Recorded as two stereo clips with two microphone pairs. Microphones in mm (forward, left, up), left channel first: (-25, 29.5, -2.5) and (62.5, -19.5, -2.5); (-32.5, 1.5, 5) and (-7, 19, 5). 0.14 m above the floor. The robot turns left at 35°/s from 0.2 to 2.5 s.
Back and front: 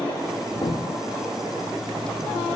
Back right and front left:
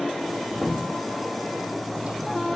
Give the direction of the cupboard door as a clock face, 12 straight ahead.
8 o'clock.